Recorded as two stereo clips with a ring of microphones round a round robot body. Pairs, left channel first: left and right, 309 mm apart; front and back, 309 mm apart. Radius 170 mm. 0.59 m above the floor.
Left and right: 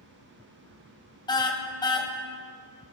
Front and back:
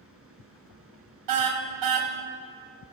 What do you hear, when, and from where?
1.3 s a car horn: 165° left, 2.5 m